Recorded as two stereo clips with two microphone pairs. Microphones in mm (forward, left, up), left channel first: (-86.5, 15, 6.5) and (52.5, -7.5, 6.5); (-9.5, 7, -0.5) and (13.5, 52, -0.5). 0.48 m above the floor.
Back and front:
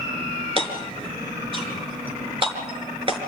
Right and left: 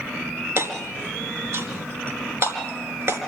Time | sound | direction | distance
0.6 | hammering | 40° left | 4.5 m